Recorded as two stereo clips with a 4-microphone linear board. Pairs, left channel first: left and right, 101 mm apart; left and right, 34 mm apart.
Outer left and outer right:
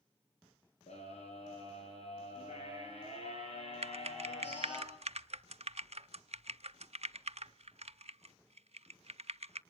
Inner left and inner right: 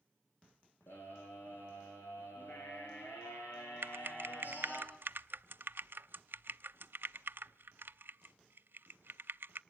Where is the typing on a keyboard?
80° right, 0.6 m.